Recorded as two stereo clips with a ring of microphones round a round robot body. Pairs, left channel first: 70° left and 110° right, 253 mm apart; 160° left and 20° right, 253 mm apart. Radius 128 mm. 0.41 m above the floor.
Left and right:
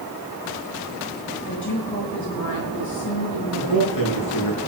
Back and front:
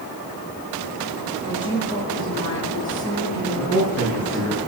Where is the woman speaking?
85° left, 5.5 m.